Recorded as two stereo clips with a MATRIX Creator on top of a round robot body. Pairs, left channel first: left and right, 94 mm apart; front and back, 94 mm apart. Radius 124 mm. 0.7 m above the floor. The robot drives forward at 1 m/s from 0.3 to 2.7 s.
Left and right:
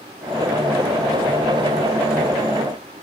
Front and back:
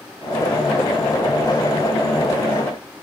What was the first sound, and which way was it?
Only background noise.